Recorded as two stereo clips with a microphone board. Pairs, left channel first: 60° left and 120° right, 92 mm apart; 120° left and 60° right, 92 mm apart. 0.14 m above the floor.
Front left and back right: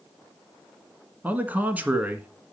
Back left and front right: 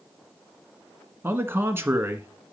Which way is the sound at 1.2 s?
75° right.